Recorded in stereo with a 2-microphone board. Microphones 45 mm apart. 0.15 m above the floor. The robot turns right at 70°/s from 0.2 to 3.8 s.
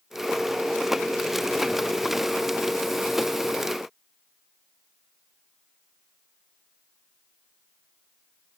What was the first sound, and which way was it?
Only background noise.